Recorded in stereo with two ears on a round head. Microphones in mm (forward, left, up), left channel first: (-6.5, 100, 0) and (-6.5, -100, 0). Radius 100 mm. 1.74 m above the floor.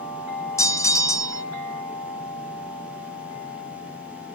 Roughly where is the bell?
Centre.